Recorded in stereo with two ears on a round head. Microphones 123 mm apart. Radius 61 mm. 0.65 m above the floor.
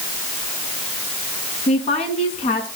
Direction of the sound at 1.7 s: 50° left (ahead or behind).